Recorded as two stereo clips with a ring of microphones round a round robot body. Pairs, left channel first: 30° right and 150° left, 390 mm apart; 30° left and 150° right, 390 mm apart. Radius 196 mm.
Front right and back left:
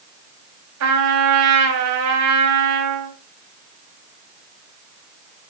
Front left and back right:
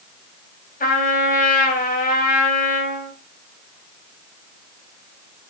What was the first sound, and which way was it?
A trumpet, 100° left.